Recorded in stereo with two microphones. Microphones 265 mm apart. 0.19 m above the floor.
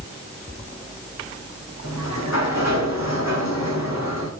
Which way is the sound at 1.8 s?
80° left.